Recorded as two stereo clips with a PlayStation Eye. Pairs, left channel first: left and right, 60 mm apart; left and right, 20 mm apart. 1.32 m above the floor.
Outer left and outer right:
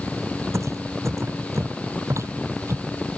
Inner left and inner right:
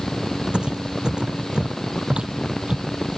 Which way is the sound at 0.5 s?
55° right (ahead or behind).